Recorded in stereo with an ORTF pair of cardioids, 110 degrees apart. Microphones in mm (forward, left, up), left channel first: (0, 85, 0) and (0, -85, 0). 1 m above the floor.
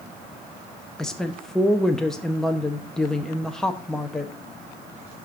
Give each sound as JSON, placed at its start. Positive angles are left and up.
{"t": 1.0, "sound": "a woman speaking", "azimuth_deg": 5, "distance_m": 0.8}